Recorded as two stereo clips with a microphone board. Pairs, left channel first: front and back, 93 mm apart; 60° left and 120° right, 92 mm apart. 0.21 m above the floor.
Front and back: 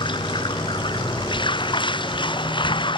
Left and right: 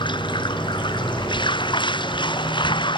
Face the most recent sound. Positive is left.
turn(degrees=30)